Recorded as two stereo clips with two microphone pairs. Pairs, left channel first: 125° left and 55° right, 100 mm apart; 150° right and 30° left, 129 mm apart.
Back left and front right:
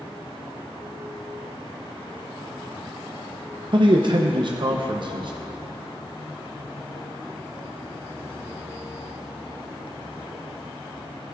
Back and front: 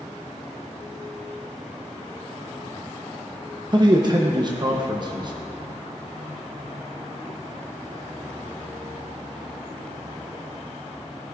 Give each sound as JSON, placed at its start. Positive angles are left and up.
{"t": 3.7, "sound": "a man speaking", "azimuth_deg": -20, "distance_m": 0.8}